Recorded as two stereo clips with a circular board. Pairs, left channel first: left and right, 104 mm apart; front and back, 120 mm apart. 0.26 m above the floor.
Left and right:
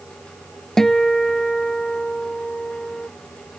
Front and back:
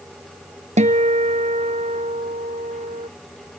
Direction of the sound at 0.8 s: 175° left.